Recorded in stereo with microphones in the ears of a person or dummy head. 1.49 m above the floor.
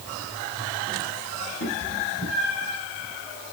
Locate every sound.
1.6 s a cat meowing: 80° left, 7 m; by 2.8 s 70° left (ahead or behind), 5.5 m